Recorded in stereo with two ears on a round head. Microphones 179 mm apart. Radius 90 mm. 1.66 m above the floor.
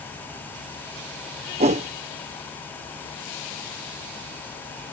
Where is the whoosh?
35° right (ahead or behind).